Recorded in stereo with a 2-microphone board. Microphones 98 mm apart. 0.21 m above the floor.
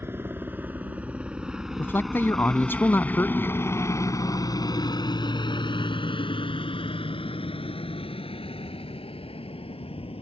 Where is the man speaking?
20° left (ahead or behind).